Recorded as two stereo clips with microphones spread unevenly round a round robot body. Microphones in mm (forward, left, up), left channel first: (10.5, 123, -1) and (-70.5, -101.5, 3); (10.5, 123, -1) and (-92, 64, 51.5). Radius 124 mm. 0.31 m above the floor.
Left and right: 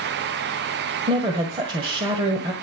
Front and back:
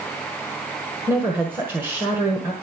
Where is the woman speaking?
50° right, 1.5 m.